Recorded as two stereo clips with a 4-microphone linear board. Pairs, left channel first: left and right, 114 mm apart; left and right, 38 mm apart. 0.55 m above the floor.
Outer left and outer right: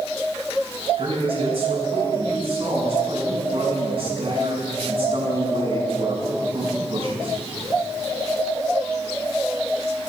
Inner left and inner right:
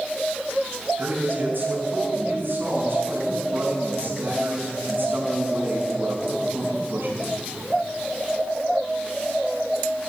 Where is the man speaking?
55° right (ahead or behind), 5 m.